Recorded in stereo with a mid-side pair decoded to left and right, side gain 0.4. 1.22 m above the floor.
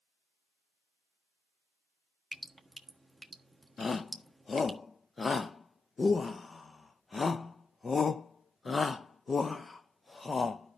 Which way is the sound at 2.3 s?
5° right.